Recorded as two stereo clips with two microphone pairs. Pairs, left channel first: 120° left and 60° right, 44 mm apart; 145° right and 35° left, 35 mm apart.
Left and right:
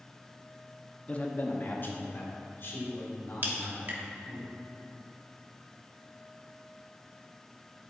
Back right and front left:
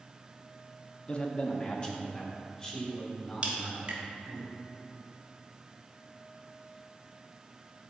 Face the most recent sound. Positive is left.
turn(degrees=-15)